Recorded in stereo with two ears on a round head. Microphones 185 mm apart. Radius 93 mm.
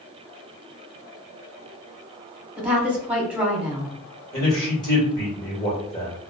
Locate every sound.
2.6 s a woman speaking: 5° right (ahead or behind), 1.2 m
4.3 s a man speaking: 20° left (ahead or behind), 1.7 m